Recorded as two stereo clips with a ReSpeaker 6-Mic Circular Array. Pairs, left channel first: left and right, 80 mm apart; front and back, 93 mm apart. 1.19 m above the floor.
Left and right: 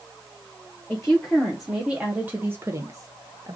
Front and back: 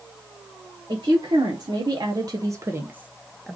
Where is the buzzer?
No buzzer in this recording.